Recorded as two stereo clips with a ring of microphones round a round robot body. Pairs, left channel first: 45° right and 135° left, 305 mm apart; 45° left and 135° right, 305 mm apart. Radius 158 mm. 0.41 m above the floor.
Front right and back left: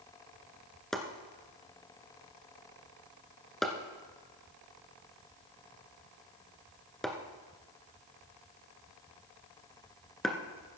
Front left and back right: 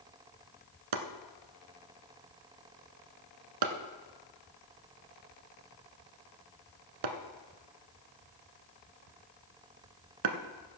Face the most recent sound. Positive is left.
turn(degrees=-135)